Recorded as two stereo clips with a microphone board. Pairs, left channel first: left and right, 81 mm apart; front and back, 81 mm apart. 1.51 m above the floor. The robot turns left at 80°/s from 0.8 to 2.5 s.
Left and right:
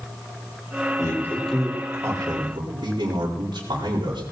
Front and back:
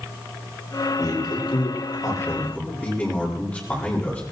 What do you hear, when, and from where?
1.0 s a man speaking: 45° left, 4 m; by 4.2 s 75° right, 4 m